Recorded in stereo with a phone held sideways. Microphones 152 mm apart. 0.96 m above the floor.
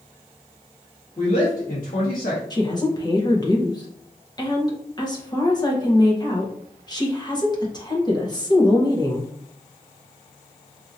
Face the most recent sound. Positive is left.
turn(degrees=25)  # may be behind; listen again after turning